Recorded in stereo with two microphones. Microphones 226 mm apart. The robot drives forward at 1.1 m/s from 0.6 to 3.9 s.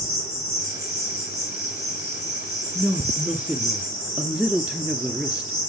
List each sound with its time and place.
0.0 s an insect: 80° right, 6.5 m; by 5.7 s 70° right (ahead or behind), 7 m
2.8 s a woman speaking: centre (ahead or behind), 3 m; by 5.7 s 5° right (ahead or behind), 1.8 m